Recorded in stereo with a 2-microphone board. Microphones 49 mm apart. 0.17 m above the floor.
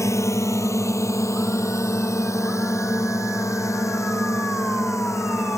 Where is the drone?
70° left (ahead or behind).